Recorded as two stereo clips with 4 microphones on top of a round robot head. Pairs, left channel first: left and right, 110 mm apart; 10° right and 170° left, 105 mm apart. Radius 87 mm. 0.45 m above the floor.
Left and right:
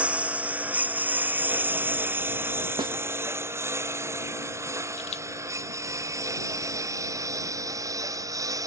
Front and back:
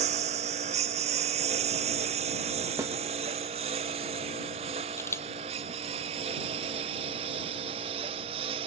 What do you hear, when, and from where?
0.0 s a lawn mower: 170° right; by 8.7 s 150° right
2.8 s a snare drum: 135° right
5.0 s a camera shutter: 55° left